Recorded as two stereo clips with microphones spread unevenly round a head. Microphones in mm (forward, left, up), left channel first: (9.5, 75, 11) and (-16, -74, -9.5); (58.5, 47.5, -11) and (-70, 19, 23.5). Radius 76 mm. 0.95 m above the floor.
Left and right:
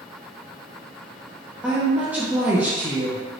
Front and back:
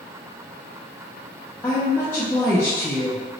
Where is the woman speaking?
35° right, 0.5 m.